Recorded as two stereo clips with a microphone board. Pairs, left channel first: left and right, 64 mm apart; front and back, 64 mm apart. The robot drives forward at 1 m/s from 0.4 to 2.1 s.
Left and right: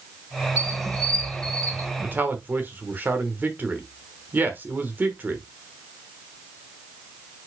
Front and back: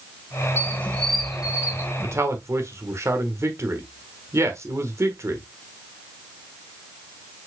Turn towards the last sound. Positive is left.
turn(degrees=-145)